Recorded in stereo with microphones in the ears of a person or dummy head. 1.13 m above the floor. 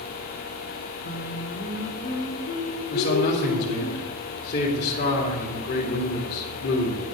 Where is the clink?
No clink in this recording.